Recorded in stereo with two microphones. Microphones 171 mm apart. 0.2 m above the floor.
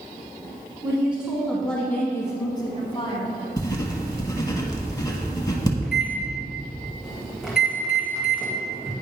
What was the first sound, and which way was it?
A woman speaking, 10° right (ahead or behind).